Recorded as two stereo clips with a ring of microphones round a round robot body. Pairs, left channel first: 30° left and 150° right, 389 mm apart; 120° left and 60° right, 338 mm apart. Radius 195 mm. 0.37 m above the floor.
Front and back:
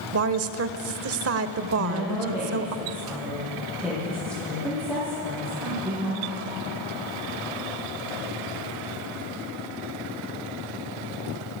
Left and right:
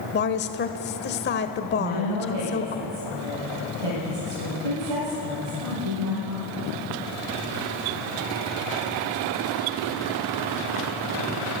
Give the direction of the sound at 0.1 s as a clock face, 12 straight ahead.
6 o'clock.